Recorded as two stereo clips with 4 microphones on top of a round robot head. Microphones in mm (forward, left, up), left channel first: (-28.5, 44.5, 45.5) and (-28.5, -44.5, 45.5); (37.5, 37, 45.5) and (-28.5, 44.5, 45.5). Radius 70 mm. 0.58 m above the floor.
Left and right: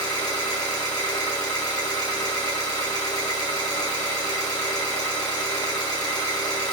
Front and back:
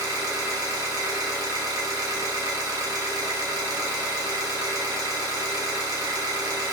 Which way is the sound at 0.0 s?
135° left.